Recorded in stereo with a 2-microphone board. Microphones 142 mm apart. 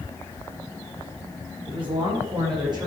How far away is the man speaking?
About 5.5 m.